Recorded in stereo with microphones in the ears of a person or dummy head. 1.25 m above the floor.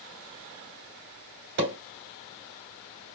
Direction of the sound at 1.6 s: 60° right (ahead or behind).